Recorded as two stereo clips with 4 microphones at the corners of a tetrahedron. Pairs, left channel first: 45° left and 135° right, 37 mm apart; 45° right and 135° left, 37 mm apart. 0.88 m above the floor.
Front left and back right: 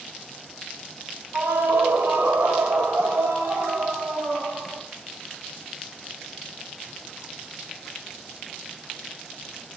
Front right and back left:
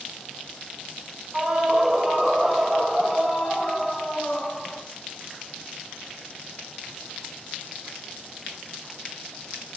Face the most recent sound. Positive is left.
turn(degrees=-145)